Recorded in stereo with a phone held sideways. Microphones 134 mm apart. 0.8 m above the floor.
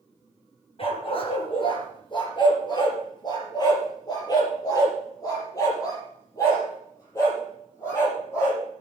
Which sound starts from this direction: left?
A dog barking, at 0.8 s.